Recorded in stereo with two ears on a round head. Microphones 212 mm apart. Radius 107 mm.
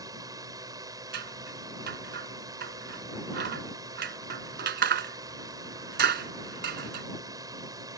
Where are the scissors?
45° right (ahead or behind).